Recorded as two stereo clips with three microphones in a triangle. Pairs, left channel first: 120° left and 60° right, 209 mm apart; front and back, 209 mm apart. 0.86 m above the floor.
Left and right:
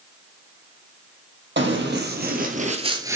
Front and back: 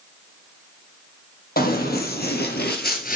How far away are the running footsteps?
About 2 m.